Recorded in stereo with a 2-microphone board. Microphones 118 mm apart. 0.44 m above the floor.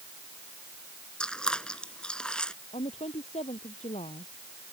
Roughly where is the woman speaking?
Left.